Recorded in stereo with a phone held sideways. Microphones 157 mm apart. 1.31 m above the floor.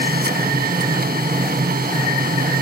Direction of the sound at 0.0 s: 80° right.